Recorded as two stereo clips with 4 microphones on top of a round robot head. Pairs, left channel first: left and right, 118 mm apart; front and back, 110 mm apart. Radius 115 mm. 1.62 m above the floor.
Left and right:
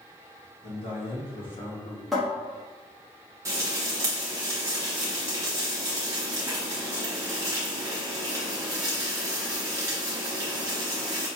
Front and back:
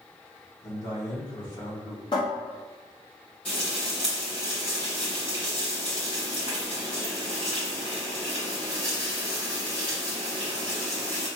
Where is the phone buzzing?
I don't hear a phone buzzing.